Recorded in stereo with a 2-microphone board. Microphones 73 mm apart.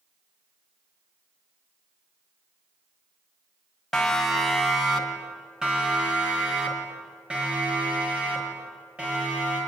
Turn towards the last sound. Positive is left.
turn(degrees=-20)  # may be behind; listen again after turning